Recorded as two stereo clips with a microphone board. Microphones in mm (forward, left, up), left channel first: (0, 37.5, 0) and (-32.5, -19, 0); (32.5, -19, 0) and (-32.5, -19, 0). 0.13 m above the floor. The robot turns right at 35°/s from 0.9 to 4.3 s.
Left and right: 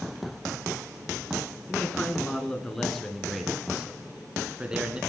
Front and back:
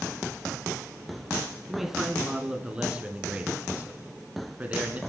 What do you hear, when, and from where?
1.7 s a man speaking: 100° left, 1.1 m; by 5.0 s 170° right, 1.1 m